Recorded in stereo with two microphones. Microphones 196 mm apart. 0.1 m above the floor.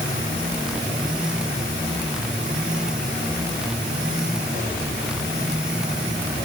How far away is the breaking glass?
I don't hear breaking glass.